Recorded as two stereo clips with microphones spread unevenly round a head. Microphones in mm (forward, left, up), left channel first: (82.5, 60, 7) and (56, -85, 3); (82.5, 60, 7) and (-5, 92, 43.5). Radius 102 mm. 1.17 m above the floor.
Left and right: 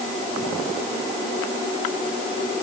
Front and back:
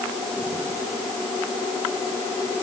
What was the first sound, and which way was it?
Only background noise.